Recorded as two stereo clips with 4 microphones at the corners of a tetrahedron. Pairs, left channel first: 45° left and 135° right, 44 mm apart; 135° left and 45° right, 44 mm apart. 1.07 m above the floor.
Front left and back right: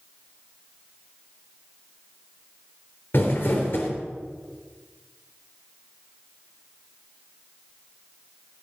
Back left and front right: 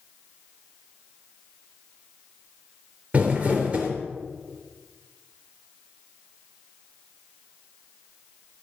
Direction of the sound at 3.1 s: 10° left.